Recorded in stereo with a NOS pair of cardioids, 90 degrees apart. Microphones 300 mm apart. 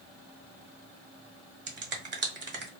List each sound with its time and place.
1.7 s a finger snap: 40° right, 1.1 m